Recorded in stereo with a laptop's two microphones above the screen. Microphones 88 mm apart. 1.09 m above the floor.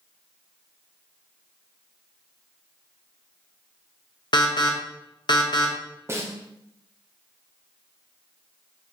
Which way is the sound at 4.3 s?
55° left (ahead or behind).